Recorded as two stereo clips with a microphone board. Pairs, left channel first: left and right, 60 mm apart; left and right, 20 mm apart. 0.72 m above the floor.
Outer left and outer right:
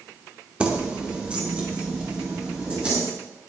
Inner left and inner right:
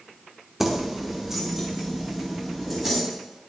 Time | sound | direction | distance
0.6 | keys jangling | 20° right (ahead or behind) | 1.0 m